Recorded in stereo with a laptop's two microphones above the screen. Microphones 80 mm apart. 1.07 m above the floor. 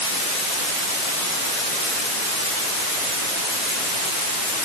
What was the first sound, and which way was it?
Only background noise.